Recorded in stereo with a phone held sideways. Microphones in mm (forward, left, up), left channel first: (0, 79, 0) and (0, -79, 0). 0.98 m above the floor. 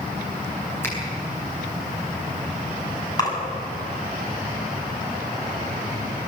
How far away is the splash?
About 7 m.